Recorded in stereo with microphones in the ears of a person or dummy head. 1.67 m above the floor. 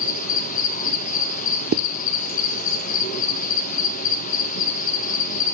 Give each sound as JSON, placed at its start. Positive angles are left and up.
{"t": 0.0, "sound": "an insect", "side_deg": 45, "distance_m": 1.9}
{"t": 1.7, "sound": "a zipper", "side_deg": -50, "distance_m": 1.1}